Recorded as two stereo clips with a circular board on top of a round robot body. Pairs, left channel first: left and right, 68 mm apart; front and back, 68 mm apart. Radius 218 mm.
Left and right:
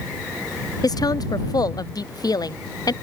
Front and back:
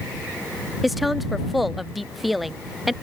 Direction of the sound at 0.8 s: 90° left.